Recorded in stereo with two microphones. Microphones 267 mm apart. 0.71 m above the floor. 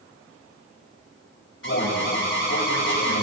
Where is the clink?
No clink in this recording.